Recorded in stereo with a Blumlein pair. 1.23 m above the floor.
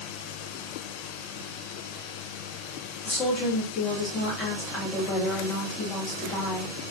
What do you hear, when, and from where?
3.0 s a woman speaking: 25° left, 2.5 m